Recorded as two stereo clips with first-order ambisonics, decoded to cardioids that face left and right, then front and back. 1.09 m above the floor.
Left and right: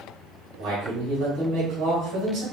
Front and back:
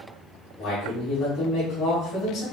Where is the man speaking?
50° right, 2.5 m.